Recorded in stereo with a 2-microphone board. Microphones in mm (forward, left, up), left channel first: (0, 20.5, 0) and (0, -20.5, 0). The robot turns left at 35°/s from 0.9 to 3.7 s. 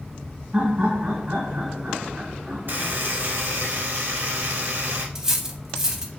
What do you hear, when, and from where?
0.5 s laughter: 20° right (ahead or behind), 1.0 m; by 3.0 s 5° left (ahead or behind), 1.0 m
2.7 s a buzzer: 50° right, 1.2 m; by 5.0 s 85° right, 1.2 m
5.2 s cutlery clinking: 15° right (ahead or behind), 0.6 m